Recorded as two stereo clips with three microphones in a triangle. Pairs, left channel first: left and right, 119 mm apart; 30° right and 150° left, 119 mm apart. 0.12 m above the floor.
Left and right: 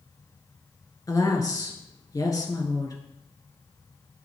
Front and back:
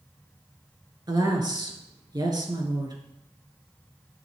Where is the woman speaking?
125° left, 2.0 m.